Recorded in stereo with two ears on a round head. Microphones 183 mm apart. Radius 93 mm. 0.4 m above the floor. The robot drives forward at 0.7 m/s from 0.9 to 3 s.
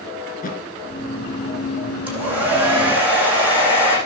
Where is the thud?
45° left (ahead or behind), 2.5 m.